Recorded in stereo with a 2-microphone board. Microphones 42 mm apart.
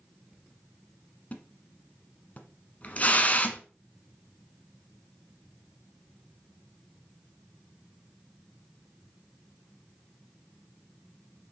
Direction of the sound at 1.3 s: 35° left (ahead or behind).